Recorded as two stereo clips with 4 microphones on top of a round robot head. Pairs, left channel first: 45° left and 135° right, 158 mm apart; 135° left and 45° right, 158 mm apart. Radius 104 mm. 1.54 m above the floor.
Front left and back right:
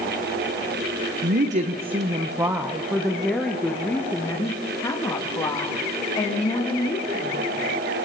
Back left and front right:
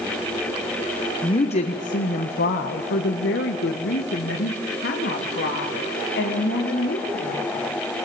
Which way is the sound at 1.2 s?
165° right.